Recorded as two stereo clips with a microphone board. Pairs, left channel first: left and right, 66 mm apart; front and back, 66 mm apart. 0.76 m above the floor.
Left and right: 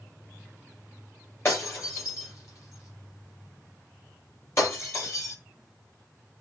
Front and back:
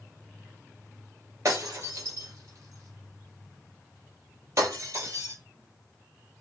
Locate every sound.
1.4 s breaking glass: 135° left, 8 m